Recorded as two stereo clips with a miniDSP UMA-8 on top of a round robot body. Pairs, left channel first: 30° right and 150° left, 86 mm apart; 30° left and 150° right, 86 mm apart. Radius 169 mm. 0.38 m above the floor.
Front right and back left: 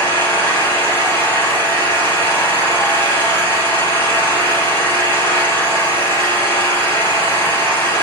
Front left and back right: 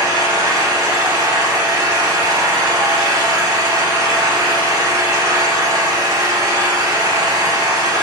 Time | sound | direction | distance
0.0 | an engine running | 95° right | 3.5 m